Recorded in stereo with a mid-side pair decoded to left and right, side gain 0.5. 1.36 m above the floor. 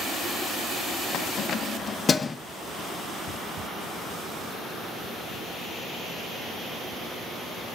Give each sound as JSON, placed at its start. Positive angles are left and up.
{"t": 1.1, "sound": "keys jangling", "azimuth_deg": 70, "distance_m": 1.0}